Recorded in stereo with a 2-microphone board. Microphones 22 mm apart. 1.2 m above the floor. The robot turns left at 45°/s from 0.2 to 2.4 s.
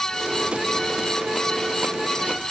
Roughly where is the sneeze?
I don't hear a sneeze.